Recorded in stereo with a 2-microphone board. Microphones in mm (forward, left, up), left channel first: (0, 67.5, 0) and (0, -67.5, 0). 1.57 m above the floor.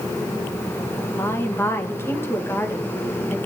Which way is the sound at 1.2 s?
20° left (ahead or behind).